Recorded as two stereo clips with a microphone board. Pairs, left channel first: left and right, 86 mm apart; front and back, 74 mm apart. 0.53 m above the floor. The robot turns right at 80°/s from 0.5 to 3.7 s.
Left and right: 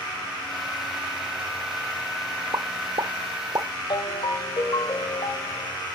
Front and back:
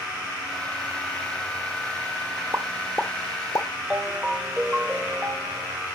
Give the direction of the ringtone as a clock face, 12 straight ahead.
9 o'clock.